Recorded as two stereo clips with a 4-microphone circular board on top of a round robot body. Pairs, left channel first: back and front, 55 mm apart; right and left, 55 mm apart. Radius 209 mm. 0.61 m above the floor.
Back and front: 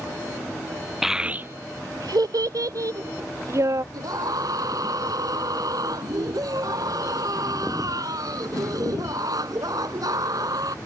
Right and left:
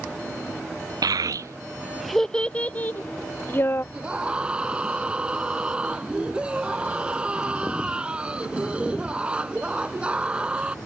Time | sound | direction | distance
1.0 | a child speaking | 85° left | ?
3.9 | a scream | 15° left | ?